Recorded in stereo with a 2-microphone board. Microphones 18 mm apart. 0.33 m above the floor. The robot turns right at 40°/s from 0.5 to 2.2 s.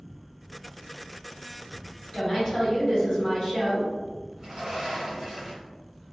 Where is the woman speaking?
45° left (ahead or behind), 1.7 m.